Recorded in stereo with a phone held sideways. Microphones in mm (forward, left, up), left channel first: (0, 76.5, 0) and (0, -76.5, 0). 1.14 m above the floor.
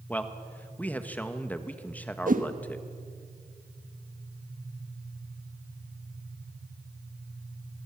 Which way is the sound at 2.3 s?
60° right (ahead or behind).